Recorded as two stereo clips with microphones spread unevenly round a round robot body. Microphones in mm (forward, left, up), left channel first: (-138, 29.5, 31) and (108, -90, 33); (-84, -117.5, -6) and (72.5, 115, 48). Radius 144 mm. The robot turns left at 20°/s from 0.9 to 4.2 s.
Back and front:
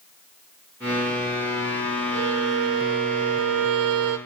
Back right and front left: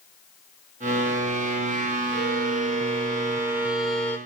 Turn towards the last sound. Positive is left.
turn(degrees=-40)